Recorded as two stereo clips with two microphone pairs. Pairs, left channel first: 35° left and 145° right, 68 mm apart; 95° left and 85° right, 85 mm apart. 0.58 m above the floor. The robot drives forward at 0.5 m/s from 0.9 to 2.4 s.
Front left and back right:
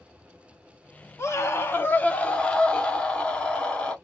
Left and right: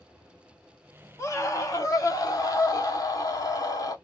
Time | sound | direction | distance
1.2 | a scream | 55° left | 1.1 m